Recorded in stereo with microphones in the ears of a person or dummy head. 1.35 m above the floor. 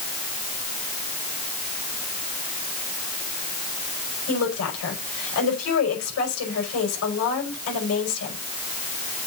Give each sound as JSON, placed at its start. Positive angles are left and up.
{"t": 4.3, "sound": "a woman speaking", "side_deg": 85, "distance_m": 5.5}